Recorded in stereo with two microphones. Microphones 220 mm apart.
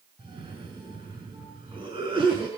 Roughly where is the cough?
Right.